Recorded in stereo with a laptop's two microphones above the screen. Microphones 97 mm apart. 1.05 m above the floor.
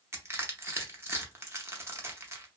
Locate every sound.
0.1 s crushing: 25° right (ahead or behind), 0.7 m